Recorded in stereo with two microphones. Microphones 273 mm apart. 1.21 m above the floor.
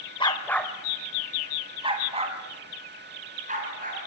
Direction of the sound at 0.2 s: 20° left (ahead or behind).